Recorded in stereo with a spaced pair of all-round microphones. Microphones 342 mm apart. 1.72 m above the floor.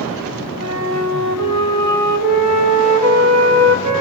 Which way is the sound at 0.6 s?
50° right (ahead or behind).